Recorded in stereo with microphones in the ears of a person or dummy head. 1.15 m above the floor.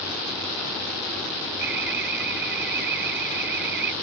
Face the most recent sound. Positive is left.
turn(degrees=-60)  # may be behind; listen again after turning